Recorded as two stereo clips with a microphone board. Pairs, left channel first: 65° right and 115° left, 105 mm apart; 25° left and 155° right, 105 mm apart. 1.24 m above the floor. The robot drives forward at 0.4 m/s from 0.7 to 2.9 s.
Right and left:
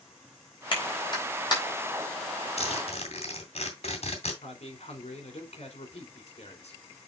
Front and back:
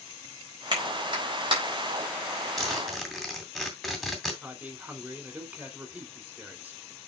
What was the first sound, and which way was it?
A clap, 110° right.